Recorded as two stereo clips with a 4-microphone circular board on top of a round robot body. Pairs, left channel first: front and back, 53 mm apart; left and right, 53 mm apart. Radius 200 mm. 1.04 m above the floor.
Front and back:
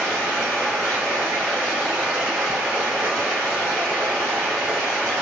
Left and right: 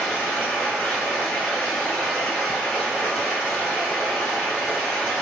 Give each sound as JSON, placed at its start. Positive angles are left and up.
{"t": 0.0, "sound": "running water", "azimuth_deg": 160, "distance_m": 1.8}